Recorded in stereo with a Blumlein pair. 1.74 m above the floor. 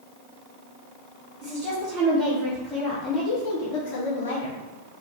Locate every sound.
1.4 s a woman speaking: 20° right, 1.4 m; by 4.6 s 70° left, 0.8 m